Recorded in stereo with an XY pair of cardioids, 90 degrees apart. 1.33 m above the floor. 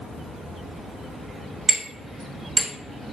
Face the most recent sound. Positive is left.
turn(degrees=-40)